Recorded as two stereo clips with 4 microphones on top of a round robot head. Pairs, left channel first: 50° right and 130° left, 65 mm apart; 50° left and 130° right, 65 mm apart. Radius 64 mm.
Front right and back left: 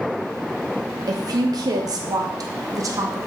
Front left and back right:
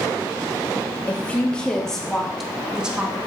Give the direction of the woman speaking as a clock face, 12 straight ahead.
8 o'clock.